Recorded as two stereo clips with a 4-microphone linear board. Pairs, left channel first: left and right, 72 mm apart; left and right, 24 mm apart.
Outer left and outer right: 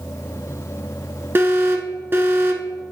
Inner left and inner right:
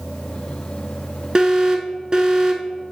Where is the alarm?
35° right (ahead or behind), 1.0 m.